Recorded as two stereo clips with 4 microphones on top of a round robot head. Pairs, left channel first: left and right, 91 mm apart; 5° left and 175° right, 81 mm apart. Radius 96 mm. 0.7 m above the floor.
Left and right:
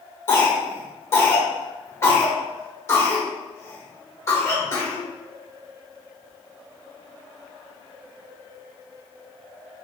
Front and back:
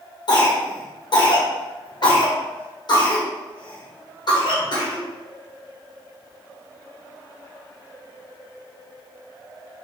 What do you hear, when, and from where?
0.3 s a cough: 40° left, 1.6 m